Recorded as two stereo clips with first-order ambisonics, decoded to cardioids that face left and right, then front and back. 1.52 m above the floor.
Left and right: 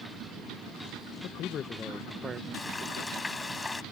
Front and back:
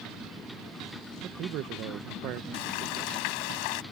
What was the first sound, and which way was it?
A man speaking, 130° left.